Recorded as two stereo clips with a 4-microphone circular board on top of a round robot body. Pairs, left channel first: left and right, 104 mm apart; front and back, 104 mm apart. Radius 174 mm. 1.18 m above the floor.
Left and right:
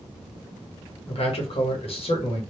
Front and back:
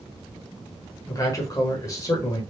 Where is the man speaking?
60° left, 1.4 m.